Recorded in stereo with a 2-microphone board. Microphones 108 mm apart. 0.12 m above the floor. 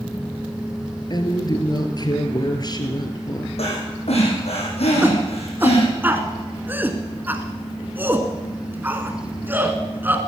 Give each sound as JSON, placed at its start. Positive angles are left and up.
{"t": 1.1, "sound": "a woman speaking", "side_deg": 40, "distance_m": 1.9}
{"t": 3.6, "sound": "breathing", "side_deg": 70, "distance_m": 4.0}
{"t": 5.0, "sound": "a shout", "side_deg": -20, "distance_m": 1.2}